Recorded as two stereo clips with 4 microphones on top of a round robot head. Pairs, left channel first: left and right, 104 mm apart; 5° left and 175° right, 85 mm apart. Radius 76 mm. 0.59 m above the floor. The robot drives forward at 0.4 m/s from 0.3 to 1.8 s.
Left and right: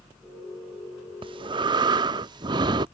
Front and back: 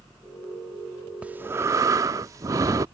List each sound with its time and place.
1.2 s breathing: 105° right; by 2.9 s 130° right